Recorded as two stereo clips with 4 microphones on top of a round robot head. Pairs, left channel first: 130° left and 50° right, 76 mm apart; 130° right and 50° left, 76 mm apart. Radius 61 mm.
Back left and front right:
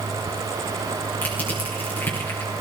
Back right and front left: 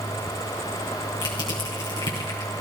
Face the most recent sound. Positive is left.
turn(degrees=-160)